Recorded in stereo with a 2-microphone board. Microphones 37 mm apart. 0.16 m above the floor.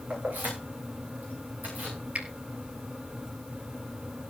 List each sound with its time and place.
0.1 s keys jangling: 45° right (ahead or behind), 9.5 m
2.1 s a finger snap: 40° right (ahead or behind), 2.5 m